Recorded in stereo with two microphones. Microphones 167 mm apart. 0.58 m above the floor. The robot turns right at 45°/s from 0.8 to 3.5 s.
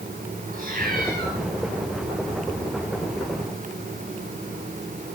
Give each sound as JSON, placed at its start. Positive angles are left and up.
{"t": 0.5, "sound": "a cat meowing", "side_deg": -55, "distance_m": 4.5}